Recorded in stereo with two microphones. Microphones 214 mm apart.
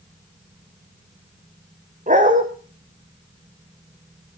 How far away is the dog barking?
About 2.5 m.